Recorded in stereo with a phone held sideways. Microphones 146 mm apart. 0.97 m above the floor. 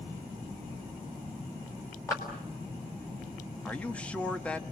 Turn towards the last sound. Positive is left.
turn(degrees=10)  # may be behind; listen again after turning